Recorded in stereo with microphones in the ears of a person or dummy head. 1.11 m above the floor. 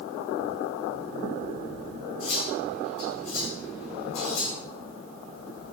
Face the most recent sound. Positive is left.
turn(degrees=75)  # may be behind; listen again after turning